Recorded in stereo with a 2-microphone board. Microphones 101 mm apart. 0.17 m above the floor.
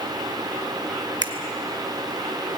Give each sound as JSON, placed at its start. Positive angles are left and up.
{"t": 1.2, "sound": "a finger snap", "side_deg": -45, "distance_m": 1.9}